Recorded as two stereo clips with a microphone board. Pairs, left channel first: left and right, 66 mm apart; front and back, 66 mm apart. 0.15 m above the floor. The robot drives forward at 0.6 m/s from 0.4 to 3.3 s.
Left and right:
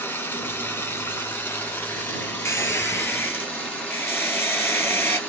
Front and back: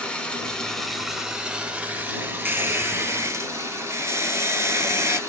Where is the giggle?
No giggle in this recording.